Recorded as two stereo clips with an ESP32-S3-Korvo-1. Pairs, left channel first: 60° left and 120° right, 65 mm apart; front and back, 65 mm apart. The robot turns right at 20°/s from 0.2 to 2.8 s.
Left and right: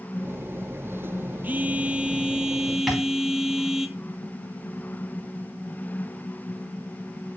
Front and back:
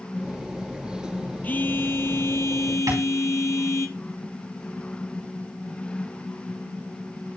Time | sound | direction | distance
1.4 | a phone buzzing | 60° right | 0.6 m
2.9 | tapping | 150° left | 4.5 m